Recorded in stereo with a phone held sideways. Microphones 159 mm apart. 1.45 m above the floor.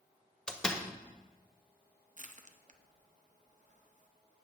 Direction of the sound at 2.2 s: 50° right (ahead or behind).